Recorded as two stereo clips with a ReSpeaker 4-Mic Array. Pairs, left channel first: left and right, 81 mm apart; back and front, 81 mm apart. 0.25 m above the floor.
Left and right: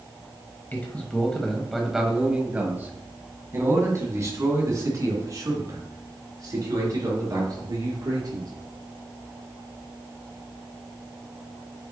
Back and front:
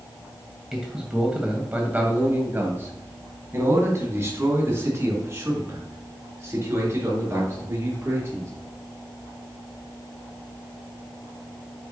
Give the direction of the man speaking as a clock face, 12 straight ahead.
9 o'clock.